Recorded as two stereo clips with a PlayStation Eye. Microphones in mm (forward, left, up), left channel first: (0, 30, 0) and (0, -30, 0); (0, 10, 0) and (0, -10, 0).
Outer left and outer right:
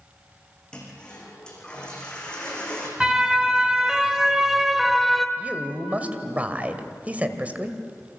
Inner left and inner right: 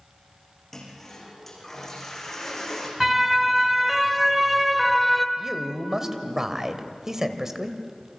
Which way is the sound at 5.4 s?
25° right (ahead or behind).